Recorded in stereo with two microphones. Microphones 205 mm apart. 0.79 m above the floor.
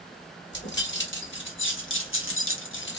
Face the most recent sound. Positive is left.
turn(degrees=60)  # may be behind; listen again after turning